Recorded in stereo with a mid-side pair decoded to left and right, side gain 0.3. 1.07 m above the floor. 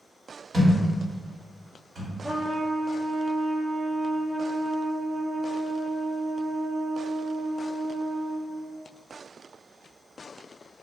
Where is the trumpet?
20° right, 0.5 m.